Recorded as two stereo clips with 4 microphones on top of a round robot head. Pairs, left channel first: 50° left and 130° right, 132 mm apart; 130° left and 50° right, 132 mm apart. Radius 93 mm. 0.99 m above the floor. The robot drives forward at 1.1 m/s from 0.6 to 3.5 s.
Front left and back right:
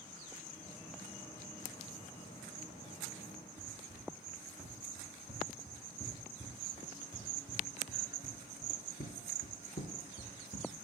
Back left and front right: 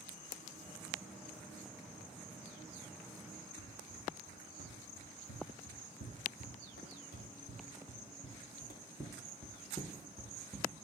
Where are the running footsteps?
145° left, 3.5 m; by 10.7 s 20° left, 1.8 m.